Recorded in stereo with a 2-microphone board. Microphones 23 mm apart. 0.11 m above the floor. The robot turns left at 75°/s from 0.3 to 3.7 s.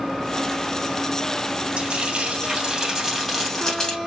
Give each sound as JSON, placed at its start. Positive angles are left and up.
{"t": 1.8, "sound": "frying", "azimuth_deg": -60, "distance_m": 2.5}